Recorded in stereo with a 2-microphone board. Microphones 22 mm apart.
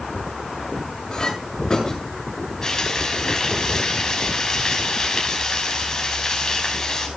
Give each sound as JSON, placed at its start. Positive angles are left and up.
{"t": 1.1, "sound": "a clink", "side_deg": 30, "distance_m": 7.0}
{"t": 2.6, "sound": "frying", "side_deg": 30, "distance_m": 5.5}